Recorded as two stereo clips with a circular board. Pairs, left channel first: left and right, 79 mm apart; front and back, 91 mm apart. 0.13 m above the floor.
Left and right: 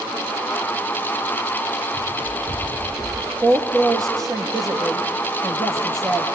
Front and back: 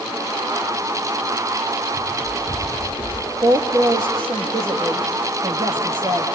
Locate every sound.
1.9 s running footsteps: 75° right, 5.5 m; by 3.3 s 80° right, 5 m
3.4 s a woman speaking: 135° right, 4.5 m